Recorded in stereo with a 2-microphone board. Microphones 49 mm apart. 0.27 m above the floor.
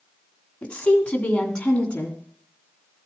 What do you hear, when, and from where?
0.6 s a woman speaking: 25° left (ahead or behind), 1.9 m; by 2.2 s 20° left (ahead or behind), 3 m